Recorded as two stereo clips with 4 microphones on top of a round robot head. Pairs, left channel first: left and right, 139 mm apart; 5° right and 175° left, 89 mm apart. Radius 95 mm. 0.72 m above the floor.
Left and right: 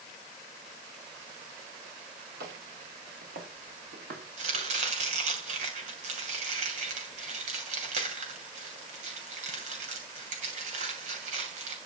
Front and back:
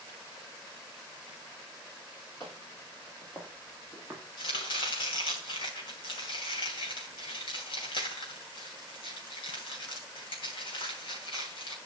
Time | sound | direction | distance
2.4 | footsteps | 80° right | 4 m
4.4 | chopping | 45° right | 2.5 m